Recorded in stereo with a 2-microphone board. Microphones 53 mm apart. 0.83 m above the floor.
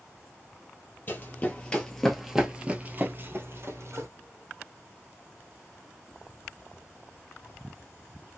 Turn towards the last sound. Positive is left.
turn(degrees=-60)  # may be behind; listen again after turning